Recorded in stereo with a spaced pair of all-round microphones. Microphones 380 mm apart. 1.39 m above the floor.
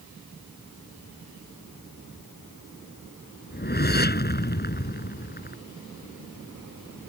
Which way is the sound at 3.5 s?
25° left (ahead or behind).